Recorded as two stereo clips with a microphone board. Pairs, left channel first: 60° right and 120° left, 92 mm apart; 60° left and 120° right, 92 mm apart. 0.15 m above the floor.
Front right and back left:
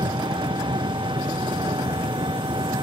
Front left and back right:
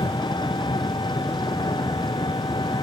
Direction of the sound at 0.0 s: 90° left.